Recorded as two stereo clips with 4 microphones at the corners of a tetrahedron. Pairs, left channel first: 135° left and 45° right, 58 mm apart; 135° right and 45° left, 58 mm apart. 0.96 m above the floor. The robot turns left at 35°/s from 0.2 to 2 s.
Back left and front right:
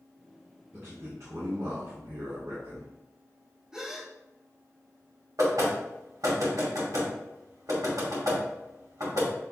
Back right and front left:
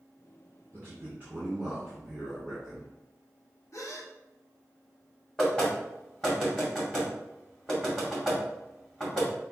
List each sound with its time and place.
0.7 s a man speaking: straight ahead, 2.5 m; by 2.9 s 45° right, 2.5 m
3.7 s a gasp: 120° right, 0.7 m
5.4 s knocking: 55° right, 2.5 m